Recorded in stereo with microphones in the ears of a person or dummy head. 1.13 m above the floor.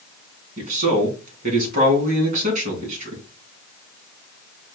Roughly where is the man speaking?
Right.